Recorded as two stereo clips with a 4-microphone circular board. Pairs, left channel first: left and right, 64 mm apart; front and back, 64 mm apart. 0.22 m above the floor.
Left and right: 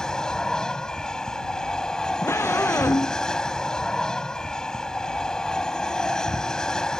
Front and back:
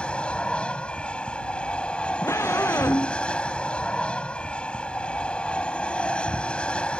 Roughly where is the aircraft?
Ahead left.